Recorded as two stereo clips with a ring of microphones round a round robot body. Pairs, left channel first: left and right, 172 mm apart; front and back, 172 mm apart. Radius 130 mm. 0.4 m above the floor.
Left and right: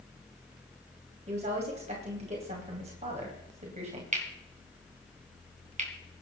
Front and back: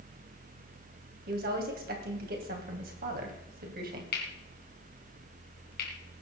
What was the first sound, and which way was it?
A woman speaking, 145° right.